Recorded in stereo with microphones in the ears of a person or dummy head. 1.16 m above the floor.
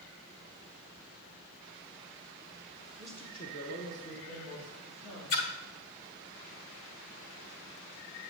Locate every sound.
3.0 s a woman speaking: 5° right (ahead or behind), 0.7 m; by 5.5 s 75° left (ahead or behind), 3 m
5.3 s a splash: 45° left (ahead or behind), 1.1 m